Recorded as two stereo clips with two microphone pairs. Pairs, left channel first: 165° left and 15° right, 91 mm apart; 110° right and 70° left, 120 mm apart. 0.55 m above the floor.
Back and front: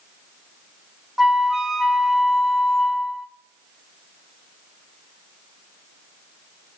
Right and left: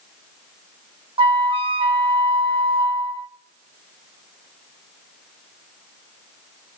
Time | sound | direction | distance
1.2 | a flute | 70° left | 0.8 m